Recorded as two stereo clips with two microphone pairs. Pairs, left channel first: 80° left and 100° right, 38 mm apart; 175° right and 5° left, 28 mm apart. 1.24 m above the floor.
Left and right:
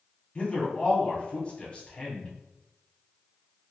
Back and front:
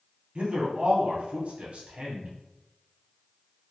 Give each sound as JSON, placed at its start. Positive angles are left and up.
{"t": 0.3, "sound": "a man speaking", "azimuth_deg": 30, "distance_m": 0.8}